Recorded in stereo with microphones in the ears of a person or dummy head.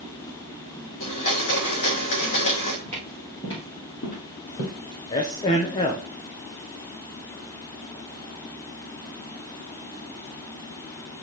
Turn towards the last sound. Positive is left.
turn(degrees=20)  # may be behind; listen again after turning